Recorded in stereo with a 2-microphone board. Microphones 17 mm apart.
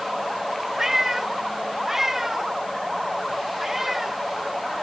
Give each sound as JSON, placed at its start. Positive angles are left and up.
{"t": 0.8, "sound": "a cat meowing", "side_deg": -15}